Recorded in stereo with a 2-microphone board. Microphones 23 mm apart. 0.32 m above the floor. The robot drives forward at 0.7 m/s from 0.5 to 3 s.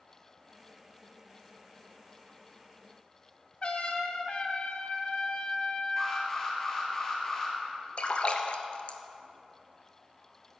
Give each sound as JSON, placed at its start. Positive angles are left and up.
{"t": 3.6, "sound": "a trumpet", "side_deg": 45, "distance_m": 1.4}
{"t": 6.0, "sound": "an alarm", "side_deg": 20, "distance_m": 4.0}
{"t": 8.0, "sound": "a splash", "side_deg": 45, "distance_m": 1.0}